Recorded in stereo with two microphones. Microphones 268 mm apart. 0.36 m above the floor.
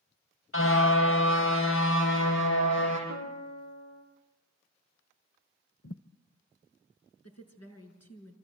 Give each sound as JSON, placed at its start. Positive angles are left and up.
{"t": 0.5, "sound": "a car horn", "side_deg": 50, "distance_m": 5.5}
{"t": 3.1, "sound": "a piano", "side_deg": 85, "distance_m": 7.5}
{"t": 5.8, "sound": "a thud", "side_deg": 55, "distance_m": 0.7}
{"t": 7.2, "sound": "a woman speaking", "side_deg": 65, "distance_m": 5.0}